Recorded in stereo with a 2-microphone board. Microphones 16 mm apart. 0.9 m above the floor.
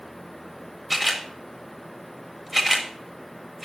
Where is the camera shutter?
15° right (ahead or behind), 1.7 m.